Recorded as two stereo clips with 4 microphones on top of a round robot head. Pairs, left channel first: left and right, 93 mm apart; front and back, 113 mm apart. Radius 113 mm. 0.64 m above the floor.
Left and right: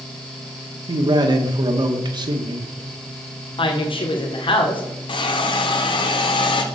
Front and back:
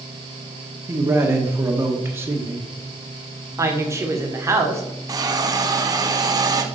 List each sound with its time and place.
0.9 s a man speaking: 115° right, 1.7 m
3.6 s a woman speaking: 115° left, 1.7 m
5.1 s a hiss: 125° left, 1.1 m